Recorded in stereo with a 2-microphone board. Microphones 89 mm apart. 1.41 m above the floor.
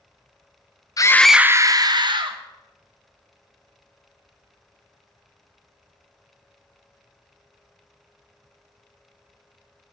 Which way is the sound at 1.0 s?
40° left (ahead or behind).